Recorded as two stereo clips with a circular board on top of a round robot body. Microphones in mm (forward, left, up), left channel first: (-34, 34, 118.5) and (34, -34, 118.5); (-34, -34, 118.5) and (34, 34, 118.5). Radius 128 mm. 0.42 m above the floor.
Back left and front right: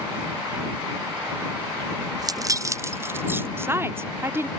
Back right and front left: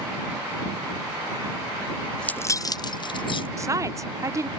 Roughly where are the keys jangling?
Ahead right.